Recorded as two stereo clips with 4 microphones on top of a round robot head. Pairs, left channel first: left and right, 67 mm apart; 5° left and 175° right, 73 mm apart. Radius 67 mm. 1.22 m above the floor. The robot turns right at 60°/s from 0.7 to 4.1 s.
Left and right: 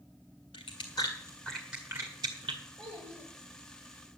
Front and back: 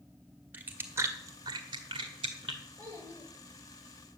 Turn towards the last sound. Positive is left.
turn(degrees=-50)